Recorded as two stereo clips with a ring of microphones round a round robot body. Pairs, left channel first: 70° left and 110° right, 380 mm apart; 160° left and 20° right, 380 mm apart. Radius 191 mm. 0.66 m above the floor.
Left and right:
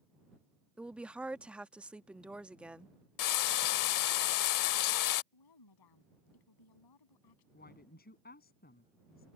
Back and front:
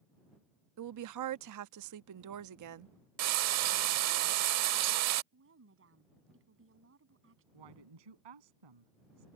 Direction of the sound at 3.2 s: 25° left.